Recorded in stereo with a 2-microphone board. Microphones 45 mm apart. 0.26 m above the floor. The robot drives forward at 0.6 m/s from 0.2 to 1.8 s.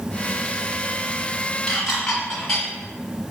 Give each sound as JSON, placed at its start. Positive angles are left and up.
{"t": 1.7, "sound": "dishes clattering", "side_deg": 15, "distance_m": 1.6}